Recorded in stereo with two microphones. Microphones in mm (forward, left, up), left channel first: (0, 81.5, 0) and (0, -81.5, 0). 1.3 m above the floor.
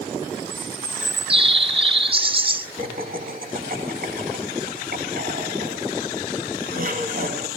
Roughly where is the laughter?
Right.